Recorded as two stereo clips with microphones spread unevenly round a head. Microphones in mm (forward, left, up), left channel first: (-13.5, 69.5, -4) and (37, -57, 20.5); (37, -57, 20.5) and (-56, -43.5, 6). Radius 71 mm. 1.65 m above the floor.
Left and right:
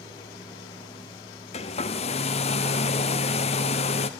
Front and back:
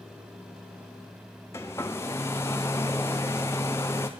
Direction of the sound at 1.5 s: 60° left.